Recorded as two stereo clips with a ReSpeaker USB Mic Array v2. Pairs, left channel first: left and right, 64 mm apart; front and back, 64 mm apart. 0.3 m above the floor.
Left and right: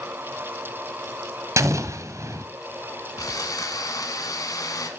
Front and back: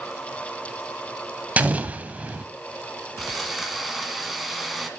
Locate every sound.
1.6 s an explosion: 115° right, 0.8 m
3.2 s sawing: 95° left, 1.6 m